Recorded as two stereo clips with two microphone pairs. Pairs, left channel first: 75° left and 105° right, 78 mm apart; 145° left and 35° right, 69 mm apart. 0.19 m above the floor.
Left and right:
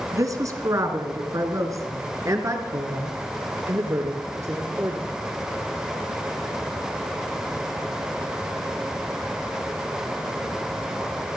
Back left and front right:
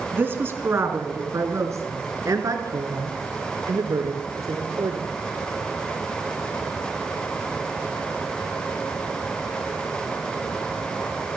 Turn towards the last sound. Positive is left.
turn(degrees=-55)